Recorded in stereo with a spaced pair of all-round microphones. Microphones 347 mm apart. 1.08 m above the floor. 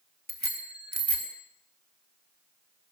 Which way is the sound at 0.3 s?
50° right (ahead or behind).